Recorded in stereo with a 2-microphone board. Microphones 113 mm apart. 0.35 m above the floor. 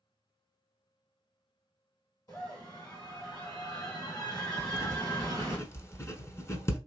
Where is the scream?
40° left (ahead or behind), 3 m.